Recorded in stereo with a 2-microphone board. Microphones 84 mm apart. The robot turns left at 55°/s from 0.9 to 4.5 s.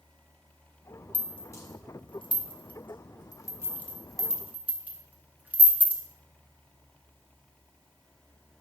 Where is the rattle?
15° left (ahead or behind), 1.3 m; by 6.0 s 20° right (ahead or behind), 1.3 m.